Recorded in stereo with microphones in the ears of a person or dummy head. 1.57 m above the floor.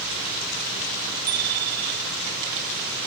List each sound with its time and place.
1.3 s a bicycle bell: 50° right (ahead or behind)